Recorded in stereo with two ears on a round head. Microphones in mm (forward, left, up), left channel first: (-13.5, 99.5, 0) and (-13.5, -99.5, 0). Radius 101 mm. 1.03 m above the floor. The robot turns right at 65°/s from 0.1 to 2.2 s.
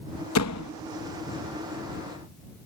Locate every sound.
0.3 s a door slam: 70° left (ahead or behind); by 0.7 s 85° left